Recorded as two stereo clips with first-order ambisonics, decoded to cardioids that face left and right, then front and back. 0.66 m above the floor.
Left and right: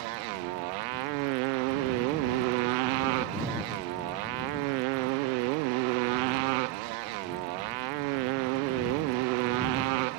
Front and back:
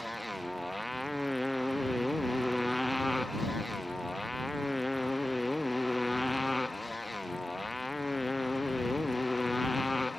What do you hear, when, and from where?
0.0 s a motorcycle: 90° right; by 10.2 s 85° right